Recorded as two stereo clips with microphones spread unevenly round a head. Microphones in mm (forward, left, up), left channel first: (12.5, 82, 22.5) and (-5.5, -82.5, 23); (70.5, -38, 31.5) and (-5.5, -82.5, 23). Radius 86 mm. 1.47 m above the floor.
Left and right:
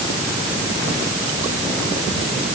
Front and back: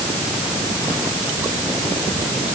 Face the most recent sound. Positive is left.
No sound to turn to.